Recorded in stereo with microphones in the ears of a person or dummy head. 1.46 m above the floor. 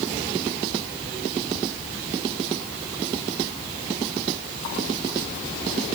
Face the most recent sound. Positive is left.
No sound to turn to.